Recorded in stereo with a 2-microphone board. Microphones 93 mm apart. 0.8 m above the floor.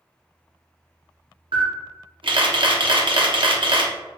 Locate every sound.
1.5 s a camera shutter: 65° right (ahead or behind), 0.8 m